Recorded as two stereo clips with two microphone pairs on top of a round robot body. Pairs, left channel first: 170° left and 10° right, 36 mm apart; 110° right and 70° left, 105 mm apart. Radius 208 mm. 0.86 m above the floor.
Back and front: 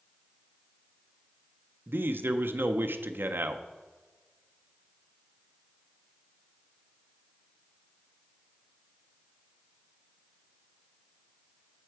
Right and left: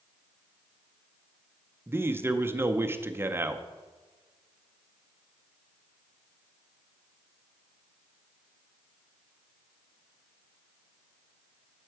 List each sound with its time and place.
1.9 s a man speaking: straight ahead, 0.6 m